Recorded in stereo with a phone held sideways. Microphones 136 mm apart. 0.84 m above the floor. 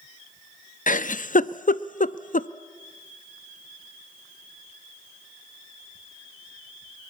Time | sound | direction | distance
0.9 | a giggle | 70° left (ahead or behind) | 0.6 m